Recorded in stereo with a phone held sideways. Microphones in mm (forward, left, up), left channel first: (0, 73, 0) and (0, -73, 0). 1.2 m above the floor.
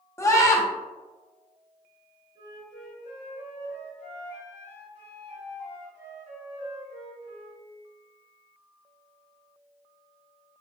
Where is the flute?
50° right (ahead or behind), 1.8 m.